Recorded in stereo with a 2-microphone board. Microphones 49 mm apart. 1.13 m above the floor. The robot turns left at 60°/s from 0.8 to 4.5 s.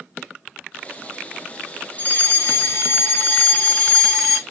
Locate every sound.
2.0 s a fire alarm: 130° left, 2 m; by 4.4 s 15° right, 2 m